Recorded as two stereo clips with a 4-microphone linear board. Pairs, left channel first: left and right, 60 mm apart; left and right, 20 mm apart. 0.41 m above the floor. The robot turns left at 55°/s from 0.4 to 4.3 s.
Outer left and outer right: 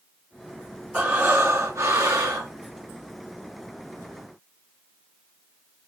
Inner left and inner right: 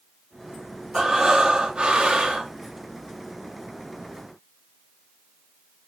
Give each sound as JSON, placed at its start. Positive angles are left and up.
{"t": 0.9, "sound": "breathing", "azimuth_deg": -15, "distance_m": 3.0}